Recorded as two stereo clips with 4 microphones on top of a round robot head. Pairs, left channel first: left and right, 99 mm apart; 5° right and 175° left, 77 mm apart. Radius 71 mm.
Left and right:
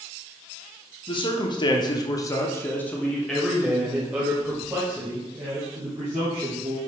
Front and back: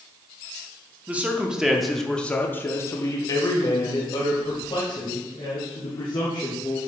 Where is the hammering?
I don't hear hammering.